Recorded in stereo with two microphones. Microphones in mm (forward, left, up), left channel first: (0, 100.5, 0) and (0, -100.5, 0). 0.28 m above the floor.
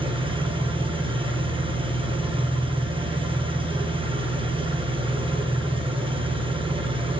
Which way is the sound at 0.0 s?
25° right (ahead or behind).